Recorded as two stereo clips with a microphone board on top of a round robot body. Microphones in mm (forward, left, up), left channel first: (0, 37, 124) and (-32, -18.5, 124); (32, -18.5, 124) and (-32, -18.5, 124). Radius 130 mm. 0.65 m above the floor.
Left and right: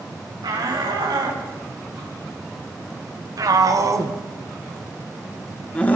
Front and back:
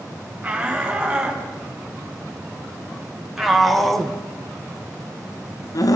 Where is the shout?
105° right, 7 m; by 6.0 s straight ahead, 1.5 m.